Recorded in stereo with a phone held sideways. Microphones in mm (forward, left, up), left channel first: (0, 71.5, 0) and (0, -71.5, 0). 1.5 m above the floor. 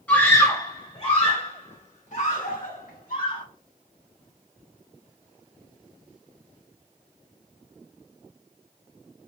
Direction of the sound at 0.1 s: 10° left (ahead or behind).